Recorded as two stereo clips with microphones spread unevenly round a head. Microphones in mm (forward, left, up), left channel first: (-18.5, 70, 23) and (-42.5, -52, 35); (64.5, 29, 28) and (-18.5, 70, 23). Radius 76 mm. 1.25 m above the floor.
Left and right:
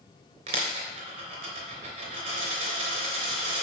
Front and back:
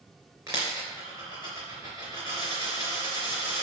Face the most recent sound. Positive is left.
turn(degrees=-135)